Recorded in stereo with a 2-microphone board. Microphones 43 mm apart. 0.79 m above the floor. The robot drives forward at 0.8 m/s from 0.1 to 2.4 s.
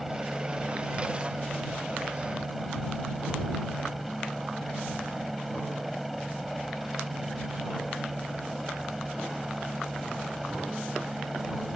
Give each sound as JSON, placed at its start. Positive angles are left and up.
{"t": 0.0, "sound": "a helicopter", "side_deg": -5}